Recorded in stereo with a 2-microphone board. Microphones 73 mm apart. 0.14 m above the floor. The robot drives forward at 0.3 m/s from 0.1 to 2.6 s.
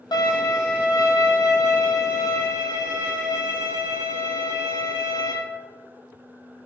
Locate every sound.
0.1 s a violin: 75° left (ahead or behind), 0.9 m; by 5.3 s 45° left (ahead or behind), 1.3 m